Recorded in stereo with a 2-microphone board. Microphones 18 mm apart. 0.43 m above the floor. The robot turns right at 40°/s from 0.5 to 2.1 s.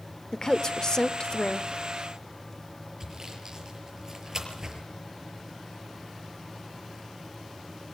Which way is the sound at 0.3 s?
60° left.